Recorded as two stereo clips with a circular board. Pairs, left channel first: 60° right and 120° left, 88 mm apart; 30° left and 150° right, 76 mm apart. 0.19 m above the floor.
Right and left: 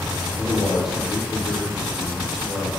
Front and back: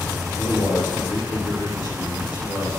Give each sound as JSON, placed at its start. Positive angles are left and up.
{"t": 0.4, "sound": "a man speaking", "azimuth_deg": 35, "distance_m": 2.5}